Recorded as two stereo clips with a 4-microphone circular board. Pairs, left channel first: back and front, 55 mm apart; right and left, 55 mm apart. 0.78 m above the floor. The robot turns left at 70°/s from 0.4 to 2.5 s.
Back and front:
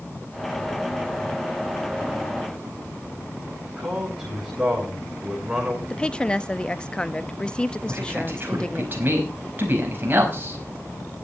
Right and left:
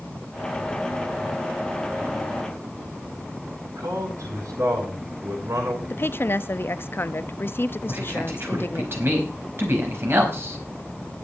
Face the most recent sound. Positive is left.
turn(degrees=50)